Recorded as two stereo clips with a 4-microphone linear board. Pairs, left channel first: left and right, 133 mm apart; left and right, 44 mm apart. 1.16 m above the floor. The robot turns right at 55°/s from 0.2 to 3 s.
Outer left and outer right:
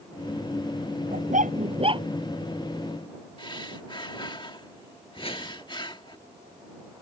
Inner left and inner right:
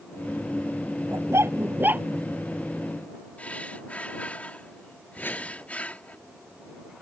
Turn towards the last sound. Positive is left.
turn(degrees=45)  # may be behind; listen again after turning